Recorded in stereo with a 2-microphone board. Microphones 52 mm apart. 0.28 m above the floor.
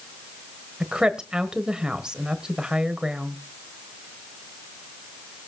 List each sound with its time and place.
0.8 s a woman speaking: 15° right (ahead or behind), 1.2 m